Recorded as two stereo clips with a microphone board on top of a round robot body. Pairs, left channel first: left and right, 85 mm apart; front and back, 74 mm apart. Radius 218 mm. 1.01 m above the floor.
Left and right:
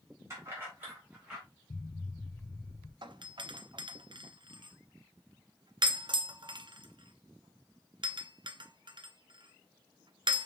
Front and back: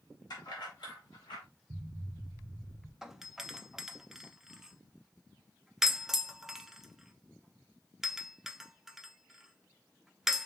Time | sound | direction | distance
0.3 | keys jangling | 35° right | 2.5 m
1.7 | an explosion | 150° left | 0.7 m
3.0 | a doorbell | 95° right | 0.8 m